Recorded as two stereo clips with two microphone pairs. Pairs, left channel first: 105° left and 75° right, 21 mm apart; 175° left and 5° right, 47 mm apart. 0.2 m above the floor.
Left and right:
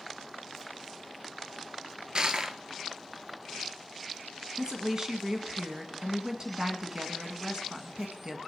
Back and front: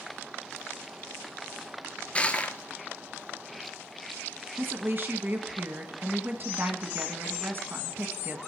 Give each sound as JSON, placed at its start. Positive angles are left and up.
{"t": 2.1, "sound": "crushing", "azimuth_deg": -125, "distance_m": 0.8}
{"t": 4.6, "sound": "a woman speaking", "azimuth_deg": -25, "distance_m": 1.5}